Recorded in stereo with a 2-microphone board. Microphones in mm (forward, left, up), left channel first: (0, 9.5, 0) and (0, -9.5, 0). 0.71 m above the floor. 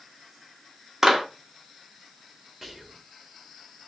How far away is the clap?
About 0.9 m.